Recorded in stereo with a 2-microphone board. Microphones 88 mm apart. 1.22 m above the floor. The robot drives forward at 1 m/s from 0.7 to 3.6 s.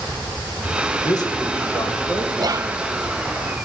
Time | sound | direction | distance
1.0 | a man speaking | 55° left (ahead or behind) | 1.3 m
2.4 | whispering | 55° right (ahead or behind) | 0.5 m